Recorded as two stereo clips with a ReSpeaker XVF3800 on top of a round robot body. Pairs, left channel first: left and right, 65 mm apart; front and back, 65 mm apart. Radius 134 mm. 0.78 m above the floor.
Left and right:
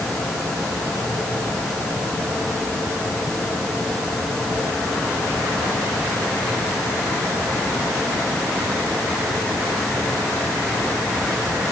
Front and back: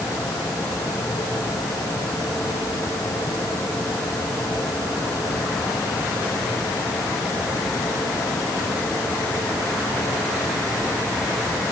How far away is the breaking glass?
No breaking glass in this recording.